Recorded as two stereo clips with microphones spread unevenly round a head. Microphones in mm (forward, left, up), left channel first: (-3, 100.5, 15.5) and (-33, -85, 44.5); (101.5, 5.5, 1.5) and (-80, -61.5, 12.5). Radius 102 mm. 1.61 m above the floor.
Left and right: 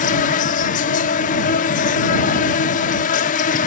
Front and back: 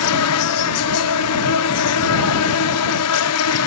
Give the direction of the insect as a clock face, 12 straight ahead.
11 o'clock.